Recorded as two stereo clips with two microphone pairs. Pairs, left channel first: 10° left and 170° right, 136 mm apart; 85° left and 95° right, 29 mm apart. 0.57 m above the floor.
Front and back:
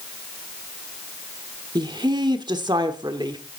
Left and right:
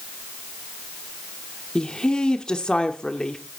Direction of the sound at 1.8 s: 140° left.